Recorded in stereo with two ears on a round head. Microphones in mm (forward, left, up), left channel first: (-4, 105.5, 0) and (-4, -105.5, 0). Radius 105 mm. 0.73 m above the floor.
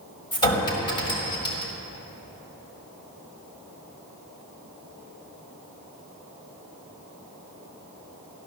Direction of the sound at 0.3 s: 20° left (ahead or behind).